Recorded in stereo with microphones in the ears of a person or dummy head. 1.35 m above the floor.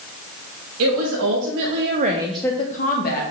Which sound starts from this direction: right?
A woman speaking, at 0.8 s.